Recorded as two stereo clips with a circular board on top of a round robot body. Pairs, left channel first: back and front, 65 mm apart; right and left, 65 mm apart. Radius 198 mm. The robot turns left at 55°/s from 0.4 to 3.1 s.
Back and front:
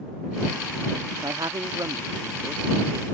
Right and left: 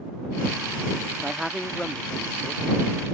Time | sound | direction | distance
1.2 | a man speaking | 15° left | ?